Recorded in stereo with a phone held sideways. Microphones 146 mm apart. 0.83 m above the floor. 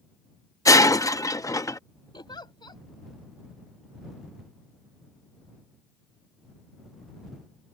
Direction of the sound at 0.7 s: 25° left (ahead or behind).